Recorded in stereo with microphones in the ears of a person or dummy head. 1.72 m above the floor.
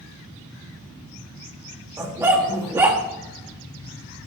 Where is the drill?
I don't hear a drill.